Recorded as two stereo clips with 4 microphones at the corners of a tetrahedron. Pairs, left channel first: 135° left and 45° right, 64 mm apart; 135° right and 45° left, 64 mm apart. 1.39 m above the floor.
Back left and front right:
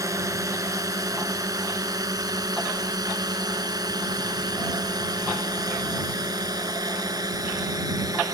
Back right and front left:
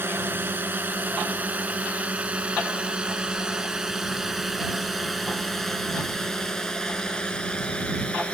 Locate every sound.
0.0 s a drone: 10° right; by 8.3 s 65° right